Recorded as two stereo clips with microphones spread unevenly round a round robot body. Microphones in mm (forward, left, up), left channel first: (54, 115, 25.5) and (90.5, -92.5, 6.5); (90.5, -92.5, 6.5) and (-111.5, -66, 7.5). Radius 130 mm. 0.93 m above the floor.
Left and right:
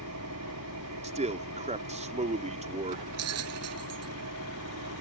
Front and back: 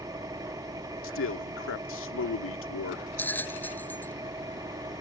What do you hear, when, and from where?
0.0 s an engine running: 115° right
1.0 s a man speaking: 25° right
3.2 s a bell: 90° right